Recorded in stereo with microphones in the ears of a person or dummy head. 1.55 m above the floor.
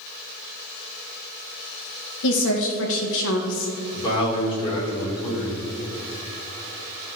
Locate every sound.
2.2 s a woman speaking: 75° left (ahead or behind), 2.0 m
3.9 s a man speaking: 25° left (ahead or behind), 4 m